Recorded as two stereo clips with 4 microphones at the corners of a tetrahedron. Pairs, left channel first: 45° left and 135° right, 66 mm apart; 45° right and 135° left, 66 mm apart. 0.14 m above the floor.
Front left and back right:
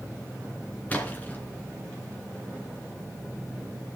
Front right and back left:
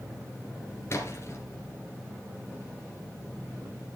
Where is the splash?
15° right, 2.5 m.